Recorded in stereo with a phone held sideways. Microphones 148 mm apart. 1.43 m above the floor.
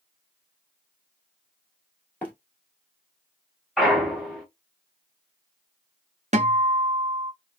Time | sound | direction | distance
2.2 | running footsteps | 10° left (ahead or behind) | 1.4 m
3.8 | a clunk | centre (ahead or behind) | 1.0 m
6.3 | a guitar | 50° right (ahead or behind) | 0.6 m